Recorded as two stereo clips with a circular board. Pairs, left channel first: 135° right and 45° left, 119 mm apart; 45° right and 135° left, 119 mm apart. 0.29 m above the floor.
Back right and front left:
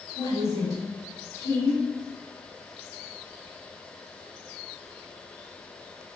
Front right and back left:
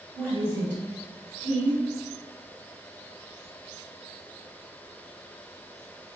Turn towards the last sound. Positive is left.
turn(degrees=75)